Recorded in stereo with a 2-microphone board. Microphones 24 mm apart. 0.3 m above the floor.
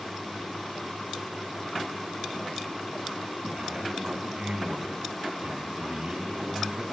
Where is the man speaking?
55° right (ahead or behind), 3 m.